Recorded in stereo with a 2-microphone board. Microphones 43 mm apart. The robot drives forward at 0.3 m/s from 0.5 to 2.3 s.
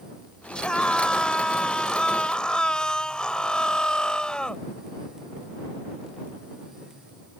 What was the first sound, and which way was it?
A scream, 20° left (ahead or behind).